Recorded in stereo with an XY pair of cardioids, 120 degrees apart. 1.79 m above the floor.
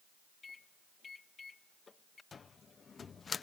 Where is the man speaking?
I don't hear a man speaking.